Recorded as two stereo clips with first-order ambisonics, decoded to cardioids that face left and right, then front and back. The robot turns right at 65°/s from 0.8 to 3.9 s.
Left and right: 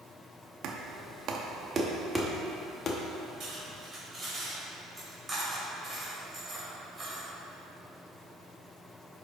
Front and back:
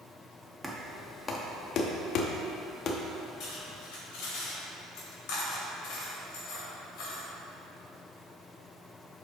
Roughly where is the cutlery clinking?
Ahead right.